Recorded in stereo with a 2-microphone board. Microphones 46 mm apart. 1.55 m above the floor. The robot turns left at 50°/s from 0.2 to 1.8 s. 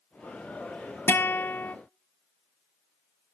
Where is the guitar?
100° left, 0.6 m; by 1.8 s 65° left, 0.6 m.